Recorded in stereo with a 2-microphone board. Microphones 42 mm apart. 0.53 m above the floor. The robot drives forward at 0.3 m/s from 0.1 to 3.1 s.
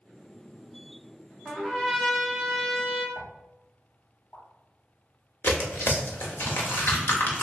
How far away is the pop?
About 1.0 m.